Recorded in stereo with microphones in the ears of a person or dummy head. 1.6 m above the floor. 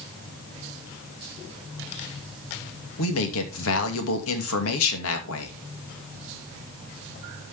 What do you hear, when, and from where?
3.0 s a man speaking: 80° left, 2.5 m